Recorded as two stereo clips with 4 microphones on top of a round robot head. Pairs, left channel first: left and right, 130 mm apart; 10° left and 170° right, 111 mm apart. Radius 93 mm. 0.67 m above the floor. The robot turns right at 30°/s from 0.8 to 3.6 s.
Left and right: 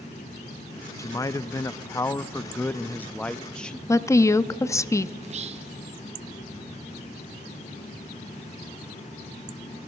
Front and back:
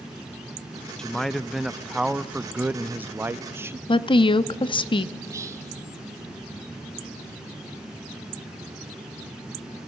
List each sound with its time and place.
1.0 s a man speaking: 85° left, 0.5 m; by 3.8 s 165° left, 0.5 m
3.9 s a woman speaking: 30° left, 0.7 m
5.2 s whispering: 110° right, 1.5 m